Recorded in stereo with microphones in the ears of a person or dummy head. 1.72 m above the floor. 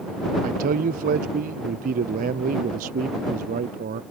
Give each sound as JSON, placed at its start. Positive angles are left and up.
{"t": 0.4, "sound": "a man speaking", "side_deg": -40}